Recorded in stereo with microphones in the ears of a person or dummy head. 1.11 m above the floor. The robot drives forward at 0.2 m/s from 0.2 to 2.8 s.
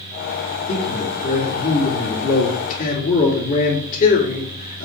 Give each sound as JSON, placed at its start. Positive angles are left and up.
{"t": 0.7, "sound": "a man speaking", "side_deg": 40, "distance_m": 3.0}